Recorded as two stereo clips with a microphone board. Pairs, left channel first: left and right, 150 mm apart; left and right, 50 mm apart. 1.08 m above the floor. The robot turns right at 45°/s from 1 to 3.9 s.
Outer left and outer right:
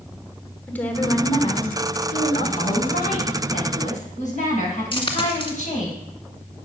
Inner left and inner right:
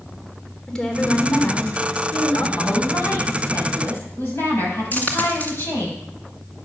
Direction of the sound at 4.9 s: 35° left (ahead or behind).